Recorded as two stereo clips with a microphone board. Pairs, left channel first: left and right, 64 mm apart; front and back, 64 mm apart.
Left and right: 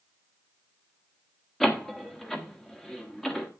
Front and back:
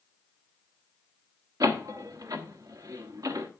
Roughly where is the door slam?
Behind.